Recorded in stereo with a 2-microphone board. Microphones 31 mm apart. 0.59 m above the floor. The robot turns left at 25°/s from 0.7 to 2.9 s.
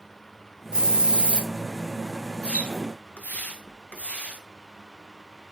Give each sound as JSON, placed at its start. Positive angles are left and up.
{"t": 0.7, "sound": "a hiss", "side_deg": -25, "distance_m": 0.6}
{"t": 2.4, "sound": "a splash", "side_deg": 40, "distance_m": 0.7}